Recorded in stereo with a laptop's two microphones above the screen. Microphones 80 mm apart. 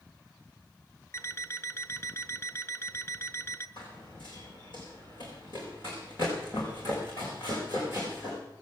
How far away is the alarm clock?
About 1.0 m.